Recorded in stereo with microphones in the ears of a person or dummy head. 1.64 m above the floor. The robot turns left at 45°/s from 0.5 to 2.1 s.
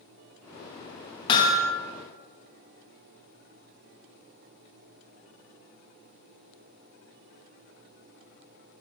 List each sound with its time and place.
1.3 s hammering: 25° left (ahead or behind), 0.9 m; by 1.7 s 5° left (ahead or behind), 0.9 m